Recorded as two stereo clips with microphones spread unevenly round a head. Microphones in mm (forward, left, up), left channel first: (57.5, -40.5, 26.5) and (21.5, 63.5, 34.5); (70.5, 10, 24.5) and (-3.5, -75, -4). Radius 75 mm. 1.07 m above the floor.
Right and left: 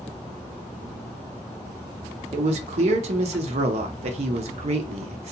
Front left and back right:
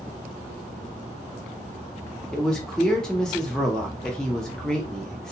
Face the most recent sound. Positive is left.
turn(degrees=140)